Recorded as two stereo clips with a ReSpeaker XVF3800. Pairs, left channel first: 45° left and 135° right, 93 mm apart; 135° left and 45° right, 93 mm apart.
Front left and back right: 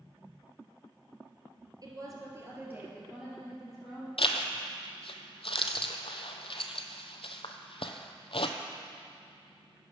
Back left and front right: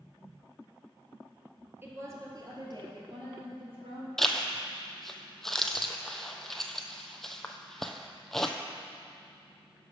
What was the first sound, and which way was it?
A woman speaking, 105° right.